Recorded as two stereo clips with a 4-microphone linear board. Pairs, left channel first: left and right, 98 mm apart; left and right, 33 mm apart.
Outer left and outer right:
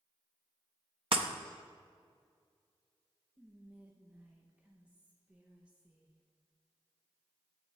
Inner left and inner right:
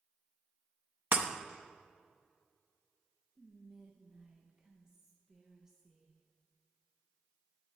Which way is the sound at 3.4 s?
15° right (ahead or behind).